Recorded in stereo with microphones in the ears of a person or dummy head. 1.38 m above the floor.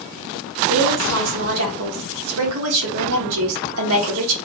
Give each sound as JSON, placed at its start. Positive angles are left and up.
{"t": 0.7, "sound": "a woman speaking", "side_deg": -75, "distance_m": 1.3}